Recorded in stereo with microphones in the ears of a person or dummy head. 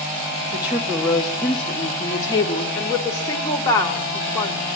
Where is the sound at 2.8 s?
20° left (ahead or behind), 4 m.